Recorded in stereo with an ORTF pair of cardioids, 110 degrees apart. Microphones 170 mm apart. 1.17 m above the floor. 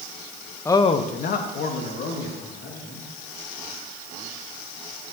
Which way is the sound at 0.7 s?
15° left.